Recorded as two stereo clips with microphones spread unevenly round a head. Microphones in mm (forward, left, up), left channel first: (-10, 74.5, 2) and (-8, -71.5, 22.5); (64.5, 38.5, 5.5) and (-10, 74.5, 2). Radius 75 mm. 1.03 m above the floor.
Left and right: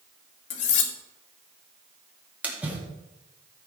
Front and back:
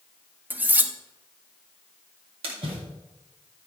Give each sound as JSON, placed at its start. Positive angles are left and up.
{"t": 0.5, "sound": "cutlery clinking", "azimuth_deg": 85, "distance_m": 1.1}
{"t": 2.4, "sound": "a splash", "azimuth_deg": -175, "distance_m": 2.0}